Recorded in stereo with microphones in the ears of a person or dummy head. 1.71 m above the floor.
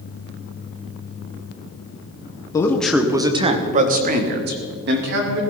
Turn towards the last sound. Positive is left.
turn(degrees=-65)  # may be behind; listen again after turning